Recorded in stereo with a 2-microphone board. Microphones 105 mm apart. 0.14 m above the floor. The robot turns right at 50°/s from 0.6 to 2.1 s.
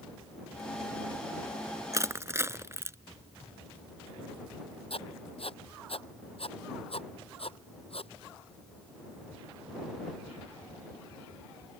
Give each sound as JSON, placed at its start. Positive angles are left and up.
{"t": 1.9, "sound": "crushing", "side_deg": -30}
{"t": 4.9, "sound": "writing", "side_deg": 60}